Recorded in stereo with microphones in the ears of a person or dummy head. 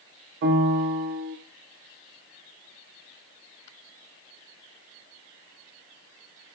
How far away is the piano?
About 0.6 m.